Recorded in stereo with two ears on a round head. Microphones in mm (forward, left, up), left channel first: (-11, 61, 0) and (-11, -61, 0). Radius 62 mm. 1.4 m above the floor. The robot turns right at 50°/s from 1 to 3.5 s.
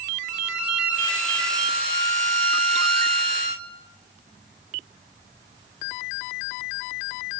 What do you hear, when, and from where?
0.3 s a violin: 175° right, 2.5 m; by 3.7 s 50° right, 2.5 m